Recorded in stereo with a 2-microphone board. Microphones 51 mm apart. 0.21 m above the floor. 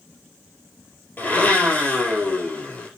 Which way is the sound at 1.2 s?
35° left (ahead or behind).